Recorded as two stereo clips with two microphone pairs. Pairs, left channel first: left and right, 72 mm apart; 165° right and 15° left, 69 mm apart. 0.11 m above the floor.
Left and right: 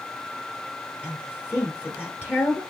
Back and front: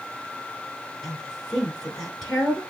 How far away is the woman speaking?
About 1.3 m.